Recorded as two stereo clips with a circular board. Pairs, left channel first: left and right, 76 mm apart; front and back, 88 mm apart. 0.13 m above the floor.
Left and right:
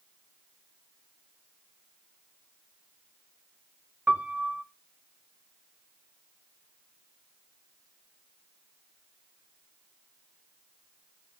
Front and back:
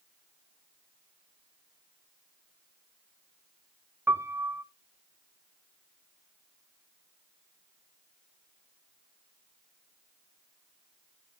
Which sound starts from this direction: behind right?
A piano, at 4.1 s.